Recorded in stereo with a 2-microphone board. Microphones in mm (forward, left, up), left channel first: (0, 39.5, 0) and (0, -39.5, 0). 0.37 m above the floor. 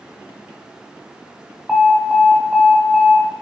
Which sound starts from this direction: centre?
An alarm, at 1.7 s.